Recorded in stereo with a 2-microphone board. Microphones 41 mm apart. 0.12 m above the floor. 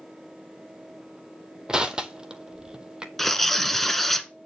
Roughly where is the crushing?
Centre.